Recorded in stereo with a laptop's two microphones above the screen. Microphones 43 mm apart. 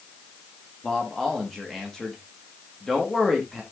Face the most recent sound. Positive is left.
turn(degrees=15)  # may be behind; listen again after turning